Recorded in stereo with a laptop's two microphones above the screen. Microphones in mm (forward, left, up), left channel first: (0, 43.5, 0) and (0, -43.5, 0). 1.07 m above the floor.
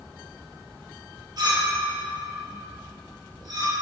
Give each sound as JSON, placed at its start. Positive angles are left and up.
{"t": 1.4, "sound": "a clink", "side_deg": -50, "distance_m": 1.5}